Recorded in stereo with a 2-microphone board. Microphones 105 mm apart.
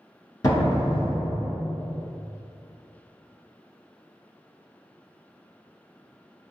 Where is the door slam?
35° left (ahead or behind), 1.3 m.